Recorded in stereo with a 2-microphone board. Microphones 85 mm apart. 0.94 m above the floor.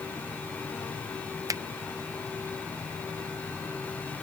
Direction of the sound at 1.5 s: 40° right (ahead or behind).